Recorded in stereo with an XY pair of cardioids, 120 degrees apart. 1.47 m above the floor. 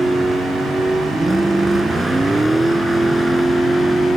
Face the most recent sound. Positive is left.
turn(degrees=-10)